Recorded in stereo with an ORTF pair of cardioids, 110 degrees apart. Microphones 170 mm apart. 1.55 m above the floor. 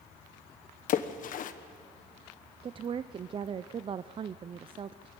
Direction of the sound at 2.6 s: 35° right.